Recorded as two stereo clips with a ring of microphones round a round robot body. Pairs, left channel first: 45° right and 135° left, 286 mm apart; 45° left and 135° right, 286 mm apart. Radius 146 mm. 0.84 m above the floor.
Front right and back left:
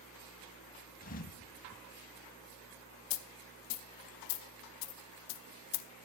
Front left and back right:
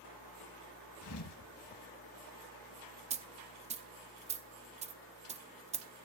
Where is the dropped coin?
65° right, 0.9 m.